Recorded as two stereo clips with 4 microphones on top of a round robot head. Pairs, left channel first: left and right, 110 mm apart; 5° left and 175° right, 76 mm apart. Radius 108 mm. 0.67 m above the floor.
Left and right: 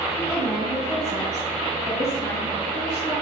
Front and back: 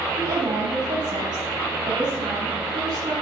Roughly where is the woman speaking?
Behind.